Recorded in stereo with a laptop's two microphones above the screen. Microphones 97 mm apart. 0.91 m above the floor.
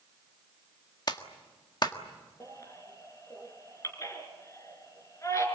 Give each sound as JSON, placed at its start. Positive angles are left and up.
{"t": 1.1, "sound": "a clap", "side_deg": 45, "distance_m": 1.6}
{"t": 2.4, "sound": "a baby crying", "side_deg": 30, "distance_m": 4.5}